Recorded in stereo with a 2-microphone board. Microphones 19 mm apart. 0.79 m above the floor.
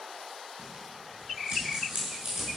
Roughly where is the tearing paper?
Right.